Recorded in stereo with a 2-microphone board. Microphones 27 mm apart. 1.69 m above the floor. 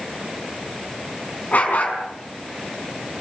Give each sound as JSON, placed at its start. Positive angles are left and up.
{"t": 1.5, "sound": "a dog barking", "side_deg": 55, "distance_m": 5.5}